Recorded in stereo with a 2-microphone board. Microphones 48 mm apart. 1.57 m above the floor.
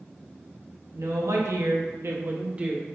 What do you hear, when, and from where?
0.9 s a woman speaking: 75° right (ahead or behind), 1.0 m; by 2.9 s 15° right (ahead or behind), 0.8 m